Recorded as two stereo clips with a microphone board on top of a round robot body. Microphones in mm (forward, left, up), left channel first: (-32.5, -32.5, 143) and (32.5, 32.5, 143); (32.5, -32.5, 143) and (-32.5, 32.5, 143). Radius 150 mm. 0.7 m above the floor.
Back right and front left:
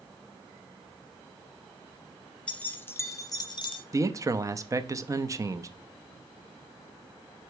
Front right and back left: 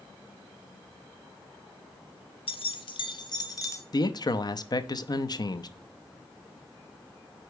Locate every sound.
2.5 s keys jangling: 55° right, 1.0 m; by 3.8 s 100° right, 1.0 m
3.9 s a man speaking: 10° right, 0.8 m